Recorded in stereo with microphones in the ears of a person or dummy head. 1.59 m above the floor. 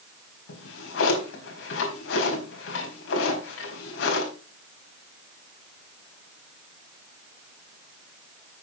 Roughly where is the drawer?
Left.